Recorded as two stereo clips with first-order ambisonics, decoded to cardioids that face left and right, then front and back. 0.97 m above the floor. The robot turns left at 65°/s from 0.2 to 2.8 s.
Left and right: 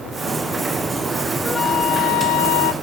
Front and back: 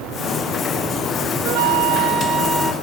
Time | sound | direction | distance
1.4 | a flute | 170° left | 1.1 m